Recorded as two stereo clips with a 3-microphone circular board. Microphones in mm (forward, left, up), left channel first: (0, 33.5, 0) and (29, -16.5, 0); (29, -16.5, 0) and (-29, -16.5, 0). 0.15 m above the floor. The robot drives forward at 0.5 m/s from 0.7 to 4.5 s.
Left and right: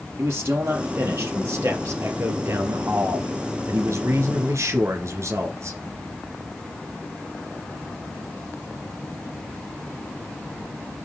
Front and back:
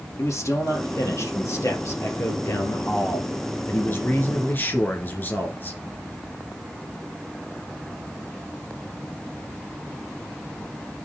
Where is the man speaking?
20° right, 3.5 m; by 5.8 s 45° right, 2 m.